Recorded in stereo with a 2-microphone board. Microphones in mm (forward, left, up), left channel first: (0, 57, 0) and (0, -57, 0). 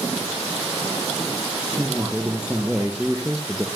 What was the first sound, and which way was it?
A man speaking, 10° right (ahead or behind).